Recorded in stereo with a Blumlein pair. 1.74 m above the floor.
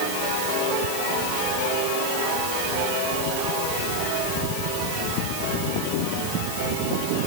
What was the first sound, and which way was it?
Only background noise.